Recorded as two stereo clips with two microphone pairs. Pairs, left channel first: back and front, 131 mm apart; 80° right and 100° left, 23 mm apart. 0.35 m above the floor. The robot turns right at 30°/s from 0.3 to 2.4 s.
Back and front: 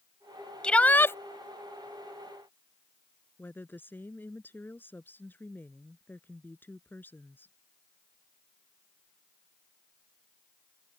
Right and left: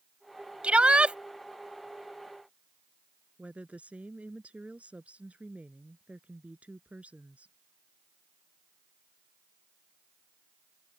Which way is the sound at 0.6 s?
95° left.